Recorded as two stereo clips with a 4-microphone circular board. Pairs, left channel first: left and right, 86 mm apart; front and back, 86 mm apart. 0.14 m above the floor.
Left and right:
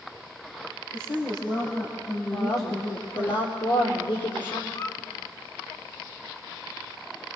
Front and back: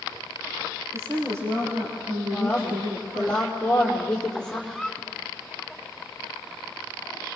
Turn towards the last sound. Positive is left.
turn(degrees=80)